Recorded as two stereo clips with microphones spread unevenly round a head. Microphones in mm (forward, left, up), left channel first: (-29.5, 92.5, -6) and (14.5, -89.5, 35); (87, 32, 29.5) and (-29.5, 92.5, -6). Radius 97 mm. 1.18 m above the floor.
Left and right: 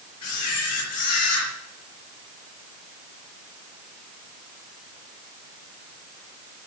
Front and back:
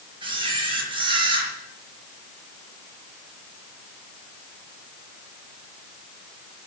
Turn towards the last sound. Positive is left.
turn(degrees=100)